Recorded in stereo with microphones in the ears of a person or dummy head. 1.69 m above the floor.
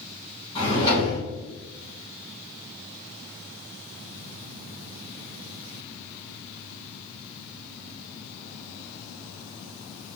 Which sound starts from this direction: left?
A drawer, at 0.6 s.